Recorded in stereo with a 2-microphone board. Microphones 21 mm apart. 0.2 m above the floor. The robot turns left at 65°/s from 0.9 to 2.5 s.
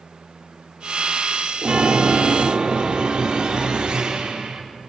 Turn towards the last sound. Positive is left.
turn(degrees=-130)